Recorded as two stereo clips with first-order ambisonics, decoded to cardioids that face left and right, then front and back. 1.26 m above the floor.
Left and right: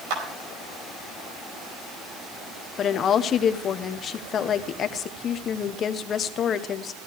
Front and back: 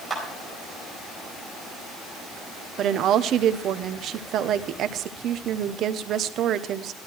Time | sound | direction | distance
0.1 | a clap | 95° right | 4.5 m
2.8 | a woman speaking | 140° left | 0.7 m